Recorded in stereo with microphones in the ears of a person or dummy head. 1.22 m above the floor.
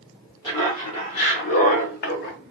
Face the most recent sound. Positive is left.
turn(degrees=50)  # may be behind; listen again after turning